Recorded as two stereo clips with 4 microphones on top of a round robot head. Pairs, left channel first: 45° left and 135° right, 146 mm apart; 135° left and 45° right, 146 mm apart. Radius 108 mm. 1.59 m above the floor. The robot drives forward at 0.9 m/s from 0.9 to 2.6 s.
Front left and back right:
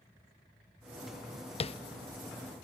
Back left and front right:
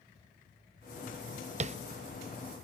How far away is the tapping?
About 0.7 m.